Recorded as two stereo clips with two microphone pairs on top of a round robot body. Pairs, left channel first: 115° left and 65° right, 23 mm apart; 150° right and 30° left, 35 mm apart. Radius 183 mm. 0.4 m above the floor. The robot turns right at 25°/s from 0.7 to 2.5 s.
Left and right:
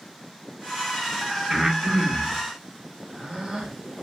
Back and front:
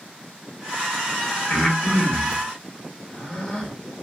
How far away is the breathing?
About 1.4 m.